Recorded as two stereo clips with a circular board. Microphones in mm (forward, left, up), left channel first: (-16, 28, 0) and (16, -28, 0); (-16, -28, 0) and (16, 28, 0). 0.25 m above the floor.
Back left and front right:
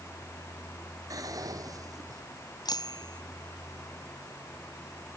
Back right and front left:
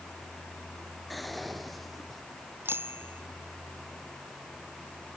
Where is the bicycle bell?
115° left.